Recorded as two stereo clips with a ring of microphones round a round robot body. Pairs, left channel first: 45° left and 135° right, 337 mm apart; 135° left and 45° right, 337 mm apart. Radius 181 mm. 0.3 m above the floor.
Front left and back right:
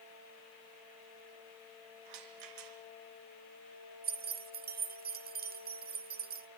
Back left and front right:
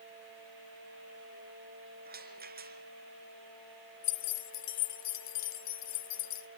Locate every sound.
2.0 s a rattle: 110° right, 3.5 m
4.0 s keys jangling: 165° left, 1.5 m